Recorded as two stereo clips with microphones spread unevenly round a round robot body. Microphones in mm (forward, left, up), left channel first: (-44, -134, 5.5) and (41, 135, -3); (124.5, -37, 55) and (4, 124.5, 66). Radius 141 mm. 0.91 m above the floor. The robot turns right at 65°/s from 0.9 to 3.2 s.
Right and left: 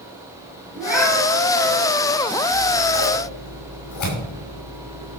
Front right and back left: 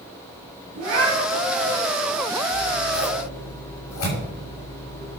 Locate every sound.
0.7 s a cat meowing: 155° left, 7 m; by 1.8 s 145° right, 7 m
2.5 s scissors: 120° right, 6 m; by 5.2 s 75° right, 6 m